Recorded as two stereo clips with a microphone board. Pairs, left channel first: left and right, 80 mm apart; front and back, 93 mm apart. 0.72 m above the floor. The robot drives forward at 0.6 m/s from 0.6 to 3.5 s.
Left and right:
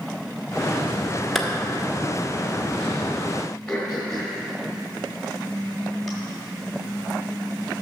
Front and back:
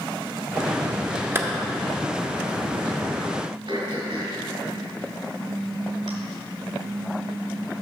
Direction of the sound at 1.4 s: 170° left.